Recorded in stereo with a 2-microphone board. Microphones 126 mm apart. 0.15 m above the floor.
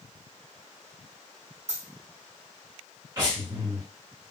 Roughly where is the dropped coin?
Right.